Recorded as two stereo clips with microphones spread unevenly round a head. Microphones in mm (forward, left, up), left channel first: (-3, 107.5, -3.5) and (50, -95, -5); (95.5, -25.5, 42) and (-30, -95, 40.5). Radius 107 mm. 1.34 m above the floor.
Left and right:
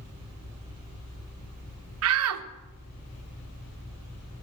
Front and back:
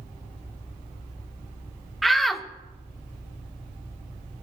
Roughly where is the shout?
Ahead right.